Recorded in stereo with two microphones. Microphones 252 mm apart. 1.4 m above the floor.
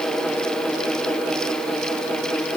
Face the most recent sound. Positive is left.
No sound to turn to.